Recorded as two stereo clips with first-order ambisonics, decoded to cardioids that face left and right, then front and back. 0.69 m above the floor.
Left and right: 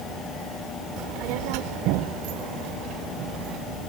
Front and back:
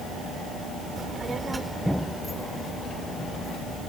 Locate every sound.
1.0 s a child speaking: 115° right; by 3.8 s 55° right